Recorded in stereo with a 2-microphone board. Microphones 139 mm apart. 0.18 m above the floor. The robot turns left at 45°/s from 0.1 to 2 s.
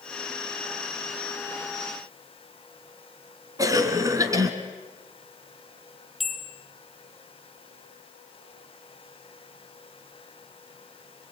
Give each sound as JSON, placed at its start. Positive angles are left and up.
{"t": 3.6, "sound": "a cough", "side_deg": -25, "distance_m": 1.8}
{"t": 6.2, "sound": "a bell", "side_deg": 0, "distance_m": 1.0}